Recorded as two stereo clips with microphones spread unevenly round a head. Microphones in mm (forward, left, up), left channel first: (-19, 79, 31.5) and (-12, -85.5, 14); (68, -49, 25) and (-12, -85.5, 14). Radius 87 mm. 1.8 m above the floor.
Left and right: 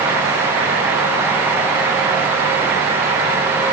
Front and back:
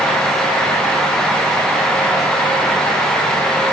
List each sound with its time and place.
Only background noise.